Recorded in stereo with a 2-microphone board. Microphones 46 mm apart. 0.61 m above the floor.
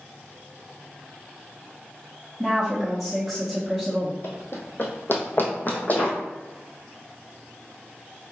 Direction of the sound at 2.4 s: Centre (ahead or behind).